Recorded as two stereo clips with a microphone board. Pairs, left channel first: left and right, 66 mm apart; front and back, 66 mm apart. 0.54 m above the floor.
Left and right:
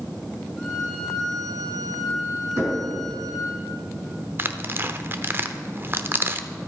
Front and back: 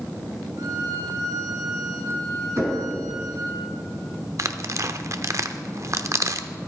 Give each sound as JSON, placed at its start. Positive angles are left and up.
{"t": 0.6, "sound": "a violin", "azimuth_deg": 175, "distance_m": 3.0}
{"t": 2.6, "sound": "knocking", "azimuth_deg": -135, "distance_m": 5.0}
{"t": 4.4, "sound": "tearing paper", "azimuth_deg": -145, "distance_m": 0.6}